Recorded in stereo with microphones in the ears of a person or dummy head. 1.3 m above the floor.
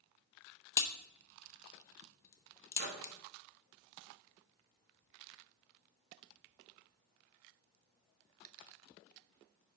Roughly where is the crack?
Left.